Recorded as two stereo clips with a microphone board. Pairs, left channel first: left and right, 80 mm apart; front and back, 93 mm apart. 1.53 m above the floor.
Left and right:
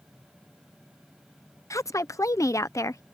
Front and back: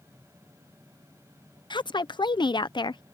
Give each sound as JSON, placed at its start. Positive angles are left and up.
{"t": 1.7, "sound": "a woman speaking", "azimuth_deg": 40}